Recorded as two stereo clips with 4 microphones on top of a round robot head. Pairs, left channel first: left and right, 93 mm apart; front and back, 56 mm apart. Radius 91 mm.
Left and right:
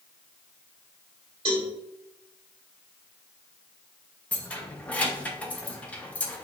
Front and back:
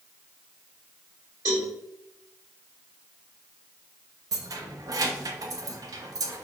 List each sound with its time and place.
1.4 s a cowbell: 130° right, 1.7 m
4.3 s keys jangling: 165° left, 0.6 m